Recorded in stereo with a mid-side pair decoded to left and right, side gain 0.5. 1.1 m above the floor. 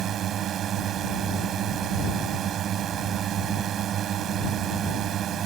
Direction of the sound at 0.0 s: 60° right.